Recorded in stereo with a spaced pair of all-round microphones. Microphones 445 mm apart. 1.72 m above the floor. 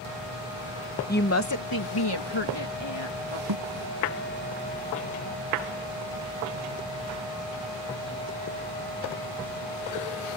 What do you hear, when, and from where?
1.1 s a woman speaking: 20° left (ahead or behind); by 3.4 s 75° left (ahead or behind)
3.5 s a thud: 55° right (ahead or behind)